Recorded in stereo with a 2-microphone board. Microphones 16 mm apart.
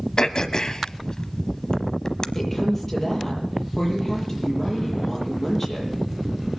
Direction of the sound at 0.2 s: 40° left (ahead or behind).